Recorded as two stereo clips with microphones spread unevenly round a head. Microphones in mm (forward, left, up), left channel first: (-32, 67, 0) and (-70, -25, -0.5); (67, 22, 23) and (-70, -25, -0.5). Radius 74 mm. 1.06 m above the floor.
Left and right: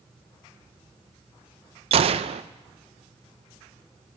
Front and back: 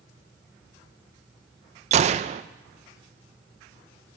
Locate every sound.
1.9 s a gunshot: 125° right, 0.6 m